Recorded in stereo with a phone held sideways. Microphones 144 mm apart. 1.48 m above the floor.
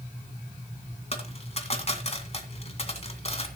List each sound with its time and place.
1.1 s a dropped coin: 45° left (ahead or behind), 2 m